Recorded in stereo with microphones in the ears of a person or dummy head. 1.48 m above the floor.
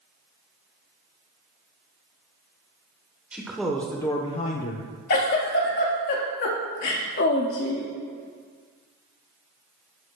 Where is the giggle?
50° left (ahead or behind), 1.5 m.